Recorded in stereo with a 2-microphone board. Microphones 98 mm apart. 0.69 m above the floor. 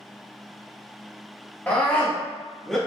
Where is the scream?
15° left (ahead or behind), 1.7 m; by 2.8 s 5° left (ahead or behind), 1.3 m.